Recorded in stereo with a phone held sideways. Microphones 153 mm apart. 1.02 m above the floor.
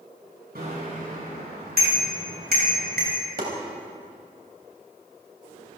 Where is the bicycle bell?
85° right, 6.5 m.